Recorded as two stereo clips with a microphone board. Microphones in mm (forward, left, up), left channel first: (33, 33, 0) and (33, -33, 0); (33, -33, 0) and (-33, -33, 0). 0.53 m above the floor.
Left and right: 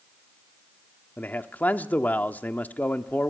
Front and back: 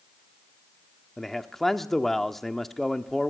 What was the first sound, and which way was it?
A man speaking, 80° left.